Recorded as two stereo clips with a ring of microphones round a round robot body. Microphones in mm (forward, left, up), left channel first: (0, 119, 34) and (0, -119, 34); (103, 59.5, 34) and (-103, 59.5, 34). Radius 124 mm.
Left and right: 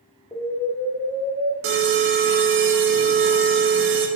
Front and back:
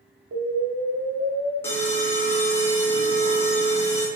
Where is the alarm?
75° right, 0.6 m.